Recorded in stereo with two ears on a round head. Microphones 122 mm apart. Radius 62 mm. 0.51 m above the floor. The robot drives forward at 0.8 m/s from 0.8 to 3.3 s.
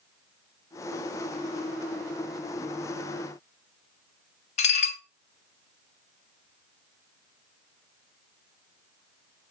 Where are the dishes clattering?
50° left (ahead or behind), 1.2 m.